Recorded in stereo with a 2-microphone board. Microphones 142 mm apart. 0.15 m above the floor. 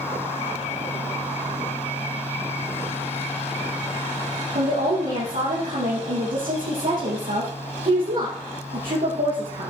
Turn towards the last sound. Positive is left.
turn(degrees=-75)  # may be behind; listen again after turning